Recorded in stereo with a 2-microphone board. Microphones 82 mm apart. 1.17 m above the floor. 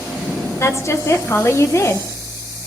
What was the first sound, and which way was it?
A woman speaking, 35° left (ahead or behind).